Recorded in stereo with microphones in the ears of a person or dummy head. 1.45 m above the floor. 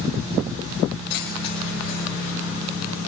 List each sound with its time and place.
1.1 s keys jangling: 55° left (ahead or behind), 3.5 m; by 2.3 s 60° left (ahead or behind), 4.5 m